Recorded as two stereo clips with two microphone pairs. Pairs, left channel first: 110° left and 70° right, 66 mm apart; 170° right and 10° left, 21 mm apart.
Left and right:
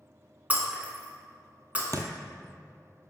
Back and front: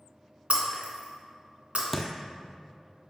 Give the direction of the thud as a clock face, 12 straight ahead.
3 o'clock.